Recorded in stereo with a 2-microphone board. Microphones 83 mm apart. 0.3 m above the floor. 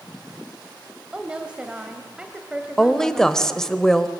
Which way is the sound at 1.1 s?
15° right (ahead or behind).